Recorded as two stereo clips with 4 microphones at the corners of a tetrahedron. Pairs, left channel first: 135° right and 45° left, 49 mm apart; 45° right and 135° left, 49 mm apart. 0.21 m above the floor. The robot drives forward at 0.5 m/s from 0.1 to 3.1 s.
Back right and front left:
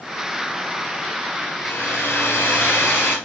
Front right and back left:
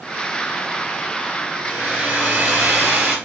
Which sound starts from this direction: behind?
A hair dryer, at 1.6 s.